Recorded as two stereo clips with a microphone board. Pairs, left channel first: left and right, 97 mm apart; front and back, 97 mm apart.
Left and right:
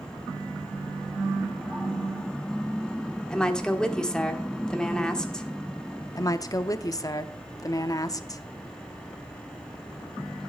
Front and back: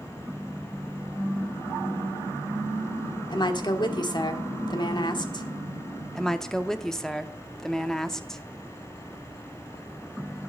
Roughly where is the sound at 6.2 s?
Left.